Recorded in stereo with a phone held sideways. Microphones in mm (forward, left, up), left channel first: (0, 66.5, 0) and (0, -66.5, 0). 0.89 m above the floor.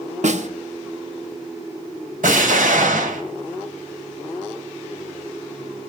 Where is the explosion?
80° right, 2 m.